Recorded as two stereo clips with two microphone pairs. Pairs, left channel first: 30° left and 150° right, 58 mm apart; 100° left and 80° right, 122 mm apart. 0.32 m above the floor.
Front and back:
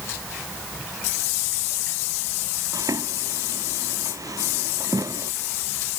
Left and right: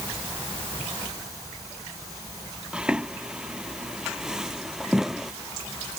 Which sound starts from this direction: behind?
Footsteps, at 2.7 s.